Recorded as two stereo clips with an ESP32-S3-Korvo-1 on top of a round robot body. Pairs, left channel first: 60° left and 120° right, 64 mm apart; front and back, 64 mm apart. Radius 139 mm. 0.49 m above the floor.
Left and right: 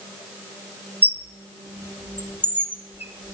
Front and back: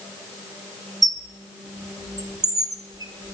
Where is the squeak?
175° right, 1.4 m.